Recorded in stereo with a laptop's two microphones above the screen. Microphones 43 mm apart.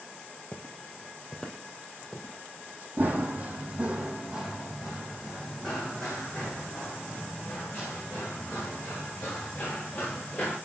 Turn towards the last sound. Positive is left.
turn(degrees=35)  # may be behind; listen again after turning